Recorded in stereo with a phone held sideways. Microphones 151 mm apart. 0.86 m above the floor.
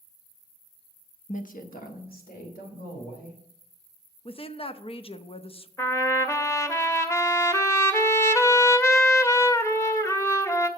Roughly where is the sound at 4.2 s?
Left.